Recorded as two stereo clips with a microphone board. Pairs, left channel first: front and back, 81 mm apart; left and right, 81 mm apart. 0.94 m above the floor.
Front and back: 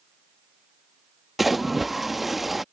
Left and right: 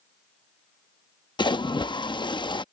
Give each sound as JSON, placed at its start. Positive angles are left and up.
{"t": 1.4, "sound": "a splash", "azimuth_deg": 90}